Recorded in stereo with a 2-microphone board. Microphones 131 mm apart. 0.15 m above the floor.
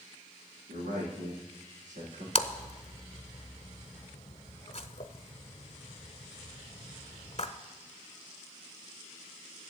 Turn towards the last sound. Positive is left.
turn(degrees=50)  # may be behind; listen again after turning